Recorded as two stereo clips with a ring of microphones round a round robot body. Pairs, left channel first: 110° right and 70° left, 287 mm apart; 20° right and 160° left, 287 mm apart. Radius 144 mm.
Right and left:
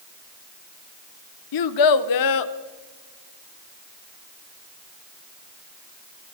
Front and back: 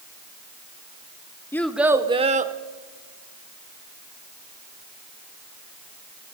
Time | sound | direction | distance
1.5 | a child speaking | 105° right | 0.8 m